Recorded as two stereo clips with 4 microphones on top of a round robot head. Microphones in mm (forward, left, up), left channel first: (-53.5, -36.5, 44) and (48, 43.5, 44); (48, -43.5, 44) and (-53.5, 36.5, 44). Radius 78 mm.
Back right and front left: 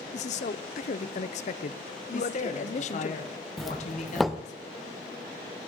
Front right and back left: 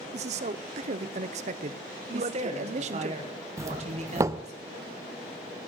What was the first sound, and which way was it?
A man speaking, straight behind.